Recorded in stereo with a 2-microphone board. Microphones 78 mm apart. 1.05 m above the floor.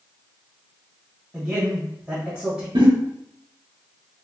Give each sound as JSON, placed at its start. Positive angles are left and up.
{"t": 1.3, "sound": "a man speaking", "side_deg": -5, "distance_m": 1.0}
{"t": 2.8, "sound": "a giggle", "side_deg": -80, "distance_m": 1.0}